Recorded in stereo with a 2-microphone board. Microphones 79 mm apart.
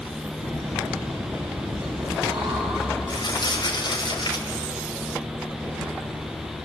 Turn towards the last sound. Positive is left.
turn(degrees=65)  # may be behind; listen again after turning